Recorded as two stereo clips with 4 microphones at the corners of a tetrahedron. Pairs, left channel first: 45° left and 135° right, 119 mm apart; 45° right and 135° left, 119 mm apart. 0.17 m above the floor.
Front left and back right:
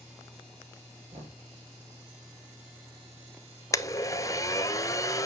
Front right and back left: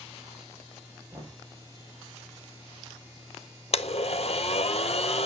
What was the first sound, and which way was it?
Knocking, 150° right.